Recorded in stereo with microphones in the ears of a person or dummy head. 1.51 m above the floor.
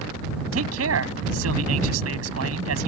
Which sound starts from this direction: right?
A man speaking, at 0.5 s.